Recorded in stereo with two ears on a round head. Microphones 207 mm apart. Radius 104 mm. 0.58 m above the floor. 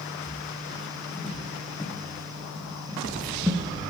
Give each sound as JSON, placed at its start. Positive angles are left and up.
{"t": 0.3, "sound": "footsteps", "side_deg": 30, "distance_m": 2.5}